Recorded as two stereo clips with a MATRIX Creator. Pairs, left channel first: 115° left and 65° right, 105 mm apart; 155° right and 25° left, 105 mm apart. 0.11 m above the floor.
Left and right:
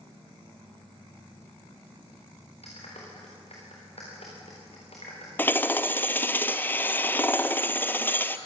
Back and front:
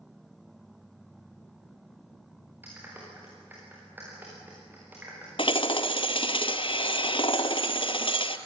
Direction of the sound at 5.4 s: Straight behind.